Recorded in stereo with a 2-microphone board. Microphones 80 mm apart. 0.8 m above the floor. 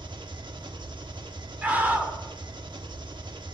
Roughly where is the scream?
Right.